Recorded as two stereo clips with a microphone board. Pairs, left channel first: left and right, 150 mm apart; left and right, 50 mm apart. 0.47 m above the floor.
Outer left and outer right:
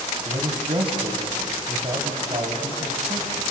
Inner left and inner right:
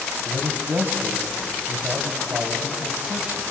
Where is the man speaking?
40° right (ahead or behind), 3 m.